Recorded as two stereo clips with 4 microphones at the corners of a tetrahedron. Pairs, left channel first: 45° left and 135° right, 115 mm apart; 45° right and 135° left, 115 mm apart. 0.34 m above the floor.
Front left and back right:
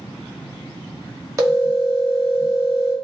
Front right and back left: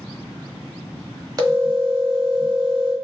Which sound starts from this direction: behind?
A phone ringing, at 1.4 s.